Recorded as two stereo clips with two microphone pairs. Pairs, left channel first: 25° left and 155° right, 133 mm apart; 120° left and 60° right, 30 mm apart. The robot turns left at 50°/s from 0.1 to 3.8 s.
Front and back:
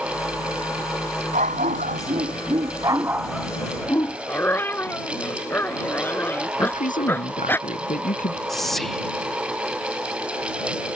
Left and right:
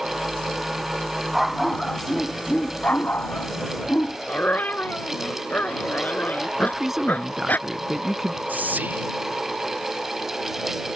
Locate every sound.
1.3 s a dog barking: 140° right; by 4.2 s 95° left
4.3 s a dog barking: 100° left
6.6 s a man speaking: 20° left
8.5 s whispering: 65° right